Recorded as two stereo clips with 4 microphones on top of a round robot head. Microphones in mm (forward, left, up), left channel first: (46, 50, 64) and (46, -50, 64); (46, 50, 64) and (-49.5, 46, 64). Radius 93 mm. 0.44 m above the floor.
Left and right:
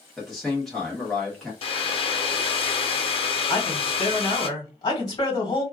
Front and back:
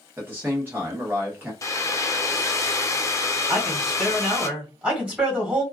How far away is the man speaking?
About 1.0 m.